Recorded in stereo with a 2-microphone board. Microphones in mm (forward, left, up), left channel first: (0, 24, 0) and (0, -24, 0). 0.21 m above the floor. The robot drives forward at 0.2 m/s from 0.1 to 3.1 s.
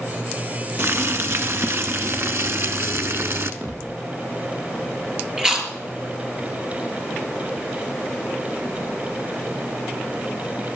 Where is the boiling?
60° right (ahead or behind), 1.2 m.